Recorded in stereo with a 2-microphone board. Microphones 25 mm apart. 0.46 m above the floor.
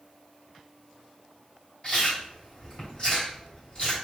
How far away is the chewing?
About 2.5 m.